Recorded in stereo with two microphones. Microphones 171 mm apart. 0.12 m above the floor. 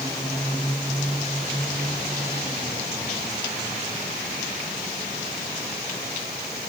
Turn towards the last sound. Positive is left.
No sound to turn to.